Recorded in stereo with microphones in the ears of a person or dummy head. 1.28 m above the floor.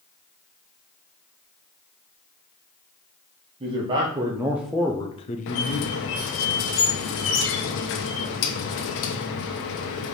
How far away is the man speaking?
About 1.1 m.